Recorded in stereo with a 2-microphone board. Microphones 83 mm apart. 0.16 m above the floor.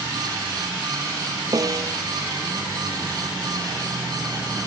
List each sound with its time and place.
1.5 s a snare drum: 45° right (ahead or behind)